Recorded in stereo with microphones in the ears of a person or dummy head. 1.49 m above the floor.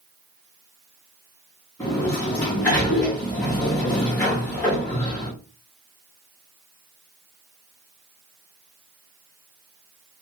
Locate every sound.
1.8 s a sliding door: 10° left (ahead or behind), 0.8 m